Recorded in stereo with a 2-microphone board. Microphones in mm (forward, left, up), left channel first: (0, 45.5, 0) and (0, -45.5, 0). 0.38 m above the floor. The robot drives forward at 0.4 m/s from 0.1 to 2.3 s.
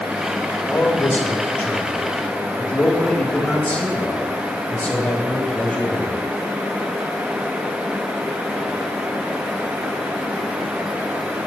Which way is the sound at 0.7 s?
20° left (ahead or behind).